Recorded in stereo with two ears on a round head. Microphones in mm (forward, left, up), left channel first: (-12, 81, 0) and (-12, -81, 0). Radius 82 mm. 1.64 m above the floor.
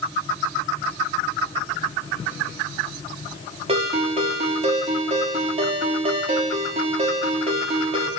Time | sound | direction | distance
3.7 | a ringtone | 30° right (ahead or behind) | 3 m